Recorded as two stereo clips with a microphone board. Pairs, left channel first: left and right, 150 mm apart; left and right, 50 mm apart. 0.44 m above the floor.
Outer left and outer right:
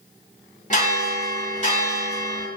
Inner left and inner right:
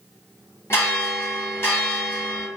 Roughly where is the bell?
Left.